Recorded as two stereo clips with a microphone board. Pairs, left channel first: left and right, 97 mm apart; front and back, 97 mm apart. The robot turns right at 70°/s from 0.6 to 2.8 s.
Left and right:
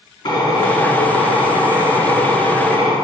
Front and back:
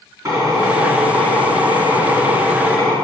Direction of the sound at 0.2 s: 125° left.